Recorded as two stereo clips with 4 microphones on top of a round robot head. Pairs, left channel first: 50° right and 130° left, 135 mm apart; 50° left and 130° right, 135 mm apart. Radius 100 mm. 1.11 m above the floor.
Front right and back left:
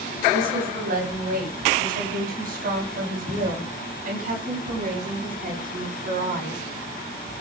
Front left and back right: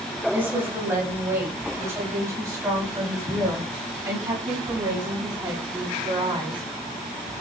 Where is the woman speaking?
150° left, 8.5 m; by 6.6 s 165° left, 12.5 m.